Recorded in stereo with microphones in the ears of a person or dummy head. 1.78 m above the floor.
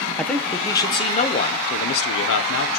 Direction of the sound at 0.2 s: Centre (ahead or behind).